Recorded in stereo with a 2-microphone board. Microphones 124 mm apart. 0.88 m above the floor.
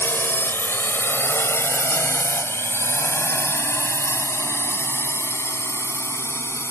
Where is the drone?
15° left (ahead or behind); by 6.7 s 20° left (ahead or behind).